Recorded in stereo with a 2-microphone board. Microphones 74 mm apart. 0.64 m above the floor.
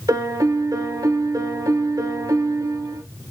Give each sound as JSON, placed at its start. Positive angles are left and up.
{"t": 0.1, "sound": "a piano", "side_deg": -60, "distance_m": 0.7}